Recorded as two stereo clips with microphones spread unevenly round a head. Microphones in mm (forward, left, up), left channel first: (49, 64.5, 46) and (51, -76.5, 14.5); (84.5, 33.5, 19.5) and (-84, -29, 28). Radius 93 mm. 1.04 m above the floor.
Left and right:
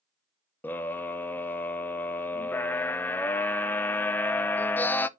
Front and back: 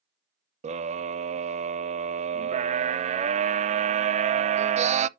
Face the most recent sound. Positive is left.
turn(degrees=175)